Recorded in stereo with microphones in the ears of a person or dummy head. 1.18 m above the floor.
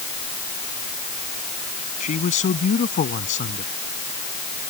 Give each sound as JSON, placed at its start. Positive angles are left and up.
{"t": 2.0, "sound": "a man speaking", "side_deg": 35}